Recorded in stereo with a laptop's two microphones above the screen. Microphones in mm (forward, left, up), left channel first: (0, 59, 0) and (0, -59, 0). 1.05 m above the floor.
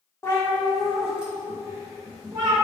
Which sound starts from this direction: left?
A cat meowing, at 0.2 s.